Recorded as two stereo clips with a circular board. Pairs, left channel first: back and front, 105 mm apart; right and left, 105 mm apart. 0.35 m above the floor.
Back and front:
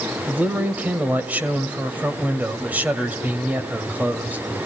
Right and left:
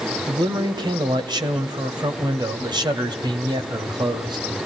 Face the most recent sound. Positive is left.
turn(degrees=70)